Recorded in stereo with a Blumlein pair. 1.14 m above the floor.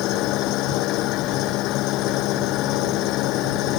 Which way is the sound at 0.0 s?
40° left.